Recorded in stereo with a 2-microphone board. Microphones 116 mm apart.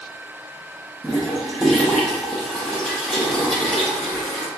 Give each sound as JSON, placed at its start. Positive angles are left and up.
{"t": 1.0, "sound": "a toilet flushing", "side_deg": 5, "distance_m": 0.7}